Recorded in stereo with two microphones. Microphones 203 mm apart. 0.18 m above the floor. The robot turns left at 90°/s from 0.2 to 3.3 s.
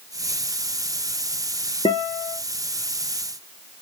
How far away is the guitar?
About 0.7 m.